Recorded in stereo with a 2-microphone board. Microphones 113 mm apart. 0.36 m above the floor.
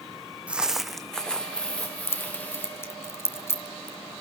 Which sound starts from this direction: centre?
Footsteps, at 0.5 s.